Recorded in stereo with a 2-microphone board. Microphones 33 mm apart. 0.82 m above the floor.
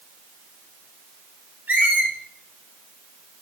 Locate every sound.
1.7 s a squeak: 70° right (ahead or behind), 1.0 m